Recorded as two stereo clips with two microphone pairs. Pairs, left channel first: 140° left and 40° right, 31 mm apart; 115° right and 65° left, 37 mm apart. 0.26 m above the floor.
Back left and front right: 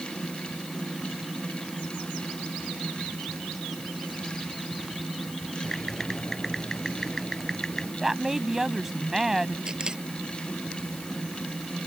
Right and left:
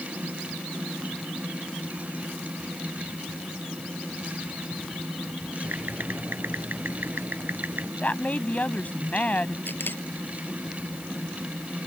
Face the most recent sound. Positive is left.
turn(degrees=-100)